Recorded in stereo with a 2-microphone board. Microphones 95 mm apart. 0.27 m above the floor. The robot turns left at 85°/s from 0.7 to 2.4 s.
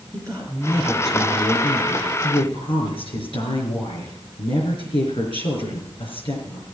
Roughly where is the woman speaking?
Behind right.